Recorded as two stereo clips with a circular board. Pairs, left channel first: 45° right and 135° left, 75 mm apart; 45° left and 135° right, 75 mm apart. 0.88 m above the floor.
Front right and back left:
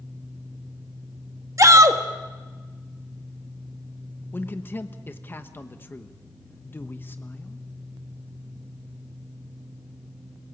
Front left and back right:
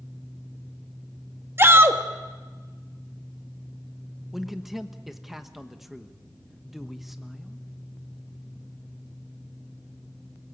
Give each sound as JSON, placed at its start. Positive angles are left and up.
{"t": 1.6, "sound": "a shout", "azimuth_deg": 170, "distance_m": 1.4}
{"t": 4.3, "sound": "a man speaking", "azimuth_deg": -50, "distance_m": 1.1}